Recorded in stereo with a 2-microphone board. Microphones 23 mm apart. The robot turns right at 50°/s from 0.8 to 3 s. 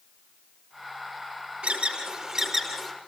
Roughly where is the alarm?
Right.